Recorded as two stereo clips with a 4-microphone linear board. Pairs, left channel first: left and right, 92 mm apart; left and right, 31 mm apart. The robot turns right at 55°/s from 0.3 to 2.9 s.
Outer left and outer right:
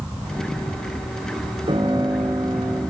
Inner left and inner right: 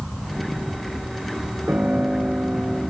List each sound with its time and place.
1.7 s a piano: 90° right, 4 m; by 2.8 s 30° right, 4 m